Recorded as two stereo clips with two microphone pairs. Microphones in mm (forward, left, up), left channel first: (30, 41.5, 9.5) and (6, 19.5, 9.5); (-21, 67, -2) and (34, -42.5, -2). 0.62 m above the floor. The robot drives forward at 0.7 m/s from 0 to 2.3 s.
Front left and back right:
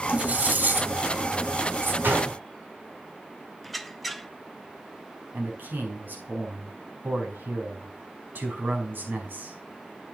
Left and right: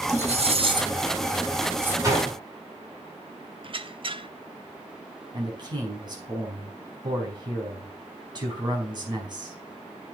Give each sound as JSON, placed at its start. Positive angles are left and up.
{"t": 0.1, "sound": "cutlery clinking", "azimuth_deg": -85, "distance_m": 1.1}
{"t": 2.0, "sound": "a gunshot", "azimuth_deg": -125, "distance_m": 5.5}
{"t": 3.6, "sound": "a squeak", "azimuth_deg": -40, "distance_m": 0.5}
{"t": 5.3, "sound": "a man speaking", "azimuth_deg": -115, "distance_m": 5.0}